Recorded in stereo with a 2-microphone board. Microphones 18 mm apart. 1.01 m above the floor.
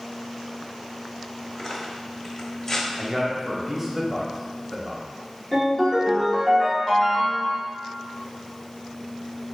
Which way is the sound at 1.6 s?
35° left (ahead or behind).